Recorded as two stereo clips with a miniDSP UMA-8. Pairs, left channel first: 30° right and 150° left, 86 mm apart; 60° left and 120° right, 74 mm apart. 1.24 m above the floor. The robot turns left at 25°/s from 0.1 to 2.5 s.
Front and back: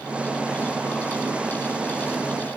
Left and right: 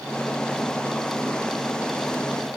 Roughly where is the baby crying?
No baby crying in this recording.